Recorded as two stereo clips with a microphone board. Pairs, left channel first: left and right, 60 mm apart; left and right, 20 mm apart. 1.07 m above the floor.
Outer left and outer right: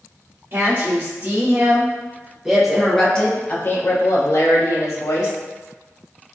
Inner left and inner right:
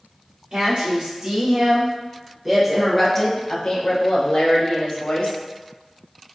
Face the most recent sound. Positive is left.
turn(degrees=70)  # may be behind; listen again after turning